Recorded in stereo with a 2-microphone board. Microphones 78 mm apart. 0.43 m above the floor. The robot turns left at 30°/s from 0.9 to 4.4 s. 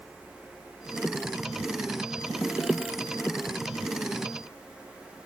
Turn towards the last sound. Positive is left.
No sound to turn to.